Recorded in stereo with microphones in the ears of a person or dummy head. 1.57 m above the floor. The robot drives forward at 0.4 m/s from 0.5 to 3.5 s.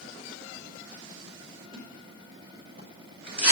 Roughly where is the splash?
Left.